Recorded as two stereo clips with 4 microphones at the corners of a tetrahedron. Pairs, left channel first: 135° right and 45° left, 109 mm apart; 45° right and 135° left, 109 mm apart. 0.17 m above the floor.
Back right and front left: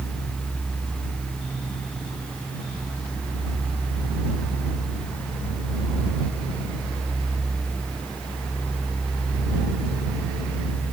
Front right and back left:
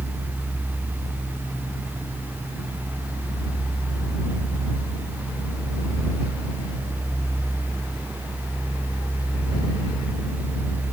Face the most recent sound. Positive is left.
No sound to turn to.